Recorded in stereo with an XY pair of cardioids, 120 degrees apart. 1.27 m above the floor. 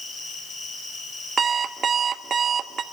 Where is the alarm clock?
35° right, 1.2 m.